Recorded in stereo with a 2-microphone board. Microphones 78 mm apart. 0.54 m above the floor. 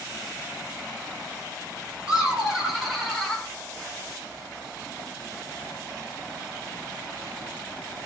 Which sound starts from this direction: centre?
Laughter, at 2.1 s.